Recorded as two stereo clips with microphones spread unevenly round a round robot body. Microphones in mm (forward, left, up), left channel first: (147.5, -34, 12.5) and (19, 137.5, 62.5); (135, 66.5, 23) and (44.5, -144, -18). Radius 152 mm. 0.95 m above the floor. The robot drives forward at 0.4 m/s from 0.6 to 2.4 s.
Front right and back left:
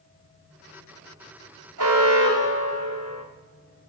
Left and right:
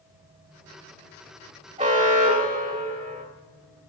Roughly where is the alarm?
Behind.